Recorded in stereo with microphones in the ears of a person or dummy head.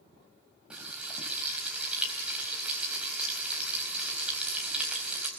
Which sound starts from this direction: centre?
Frying, at 0.7 s.